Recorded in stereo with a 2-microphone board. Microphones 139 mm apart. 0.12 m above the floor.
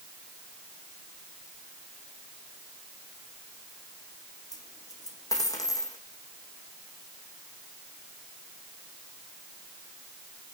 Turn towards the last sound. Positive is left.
turn(degrees=25)  # may be behind; listen again after turning